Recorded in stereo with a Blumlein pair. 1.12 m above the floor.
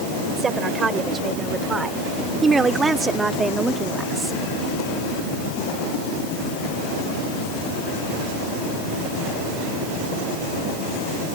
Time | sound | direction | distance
0.4 | a woman speaking | 20° right | ?